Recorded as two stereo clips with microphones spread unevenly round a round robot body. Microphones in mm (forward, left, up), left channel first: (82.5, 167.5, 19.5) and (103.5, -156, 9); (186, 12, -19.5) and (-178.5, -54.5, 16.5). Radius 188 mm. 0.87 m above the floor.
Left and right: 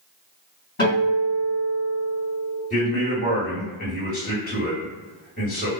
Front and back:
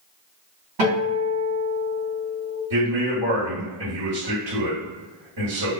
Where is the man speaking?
160° left, 1.8 m.